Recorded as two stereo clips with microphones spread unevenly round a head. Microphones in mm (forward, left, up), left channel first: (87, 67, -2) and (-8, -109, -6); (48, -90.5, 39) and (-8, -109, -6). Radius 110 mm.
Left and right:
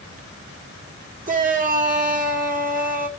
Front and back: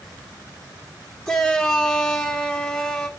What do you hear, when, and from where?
1.3 s a shout: 70° right, 2.5 m